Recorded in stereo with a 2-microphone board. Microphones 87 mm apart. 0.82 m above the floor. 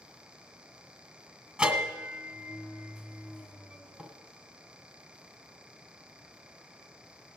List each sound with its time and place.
1.6 s a bell: 15° right (ahead or behind), 1.6 m